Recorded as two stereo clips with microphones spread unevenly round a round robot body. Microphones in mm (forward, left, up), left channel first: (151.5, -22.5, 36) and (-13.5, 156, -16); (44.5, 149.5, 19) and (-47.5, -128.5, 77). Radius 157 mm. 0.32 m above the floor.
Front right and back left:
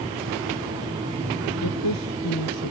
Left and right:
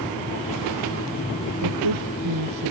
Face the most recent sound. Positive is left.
turn(degrees=-85)